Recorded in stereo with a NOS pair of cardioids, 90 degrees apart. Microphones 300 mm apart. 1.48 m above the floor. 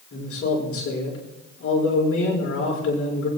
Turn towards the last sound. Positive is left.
turn(degrees=50)